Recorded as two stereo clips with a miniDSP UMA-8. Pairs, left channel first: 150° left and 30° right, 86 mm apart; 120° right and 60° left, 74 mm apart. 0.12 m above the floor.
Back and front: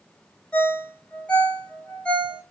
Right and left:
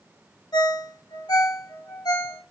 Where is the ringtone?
135° right, 1.1 m.